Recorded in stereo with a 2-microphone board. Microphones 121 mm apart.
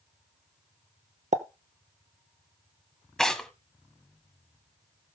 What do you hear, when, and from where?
1.3 s a pop: 75° right (ahead or behind), 0.8 m
3.2 s tearing paper: 5° left (ahead or behind), 1.1 m